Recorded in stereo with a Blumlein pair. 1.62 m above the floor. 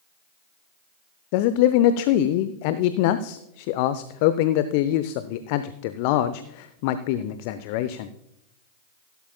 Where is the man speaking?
45° left, 0.6 m.